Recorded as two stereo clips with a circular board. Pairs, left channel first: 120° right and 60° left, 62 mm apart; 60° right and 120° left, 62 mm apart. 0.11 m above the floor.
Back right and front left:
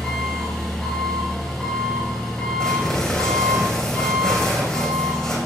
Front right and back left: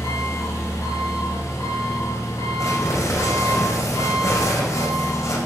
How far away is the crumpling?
About 6.5 m.